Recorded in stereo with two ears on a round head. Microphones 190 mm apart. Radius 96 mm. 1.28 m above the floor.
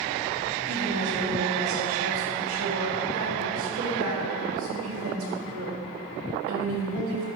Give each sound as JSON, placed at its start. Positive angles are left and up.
{"t": 0.7, "sound": "a woman speaking", "side_deg": -80, "distance_m": 3.0}